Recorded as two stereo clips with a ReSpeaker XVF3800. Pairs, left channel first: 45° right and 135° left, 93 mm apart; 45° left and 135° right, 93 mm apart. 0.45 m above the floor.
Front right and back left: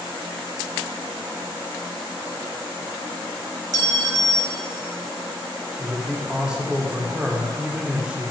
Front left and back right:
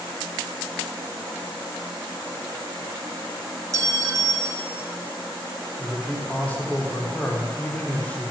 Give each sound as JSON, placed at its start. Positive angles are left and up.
{"t": 3.7, "sound": "a clink", "azimuth_deg": 175, "distance_m": 0.8}
{"t": 5.8, "sound": "a man speaking", "azimuth_deg": 75, "distance_m": 1.4}